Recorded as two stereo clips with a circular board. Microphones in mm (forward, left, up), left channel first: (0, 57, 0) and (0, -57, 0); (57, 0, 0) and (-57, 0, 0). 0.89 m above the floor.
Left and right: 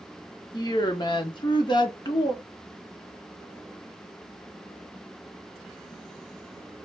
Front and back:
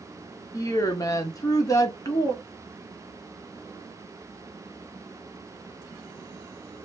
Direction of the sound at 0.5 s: 50° left.